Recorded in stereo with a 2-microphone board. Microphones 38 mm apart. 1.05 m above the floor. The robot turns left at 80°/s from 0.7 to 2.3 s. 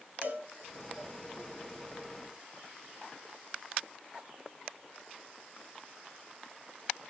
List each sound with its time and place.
0.2 s a cowbell: 50° right (ahead or behind), 2.0 m